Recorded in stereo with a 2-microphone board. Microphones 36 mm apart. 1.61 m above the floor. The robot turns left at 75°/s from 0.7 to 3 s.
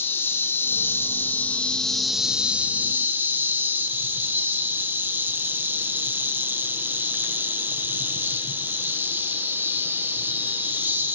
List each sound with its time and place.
0.0 s an insect: 105° left, 1.2 m; by 11.2 s 70° right, 1.2 m